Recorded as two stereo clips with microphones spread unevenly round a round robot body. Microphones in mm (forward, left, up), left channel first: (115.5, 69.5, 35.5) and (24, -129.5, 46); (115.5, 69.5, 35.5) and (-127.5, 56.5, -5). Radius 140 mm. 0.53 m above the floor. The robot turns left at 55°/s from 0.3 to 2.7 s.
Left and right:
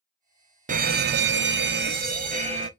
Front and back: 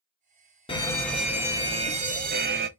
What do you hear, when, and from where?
0.7 s an alarm: 70° right, 0.5 m; by 2.7 s straight behind, 0.5 m